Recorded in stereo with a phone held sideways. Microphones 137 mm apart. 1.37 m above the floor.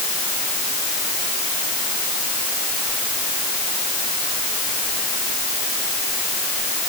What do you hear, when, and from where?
Only background noise.